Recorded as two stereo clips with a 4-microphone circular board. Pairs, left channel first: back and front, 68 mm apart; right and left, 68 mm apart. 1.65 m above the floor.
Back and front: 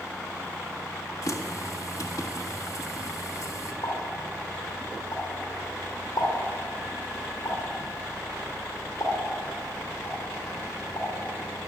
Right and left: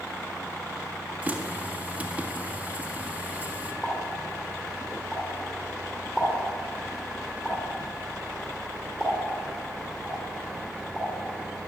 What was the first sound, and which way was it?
A running tap, 160° left.